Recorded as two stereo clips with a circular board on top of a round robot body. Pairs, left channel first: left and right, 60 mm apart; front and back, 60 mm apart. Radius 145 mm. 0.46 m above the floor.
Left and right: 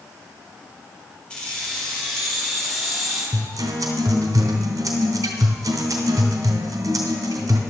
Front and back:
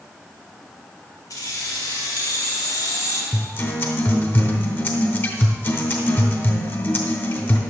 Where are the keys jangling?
20° left, 3 m; by 3.2 s straight ahead, 3.5 m.